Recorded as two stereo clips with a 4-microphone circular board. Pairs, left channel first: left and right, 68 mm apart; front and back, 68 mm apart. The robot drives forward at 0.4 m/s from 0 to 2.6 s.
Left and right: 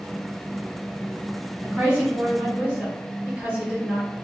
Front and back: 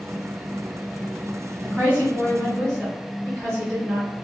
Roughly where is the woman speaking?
Behind right.